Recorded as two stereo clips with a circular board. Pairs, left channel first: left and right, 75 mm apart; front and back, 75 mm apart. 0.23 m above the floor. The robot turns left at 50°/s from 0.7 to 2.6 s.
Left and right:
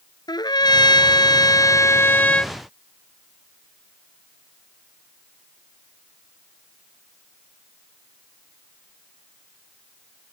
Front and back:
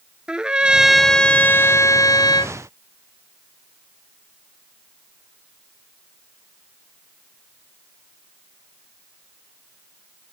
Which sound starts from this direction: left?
A trumpet, at 0.3 s.